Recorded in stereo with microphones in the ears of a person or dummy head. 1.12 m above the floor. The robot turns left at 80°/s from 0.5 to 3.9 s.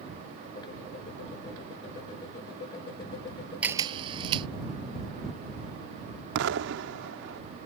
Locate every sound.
3.6 s a camera shutter: 10° right (ahead or behind); by 4.5 s 30° right (ahead or behind)
6.3 s an explosion: 70° right (ahead or behind)